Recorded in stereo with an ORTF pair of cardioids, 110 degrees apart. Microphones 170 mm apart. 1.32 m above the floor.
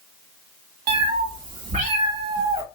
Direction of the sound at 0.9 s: 65° right.